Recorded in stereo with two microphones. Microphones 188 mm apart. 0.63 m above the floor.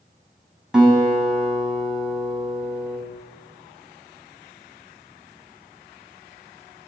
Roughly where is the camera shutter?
I don't hear a camera shutter.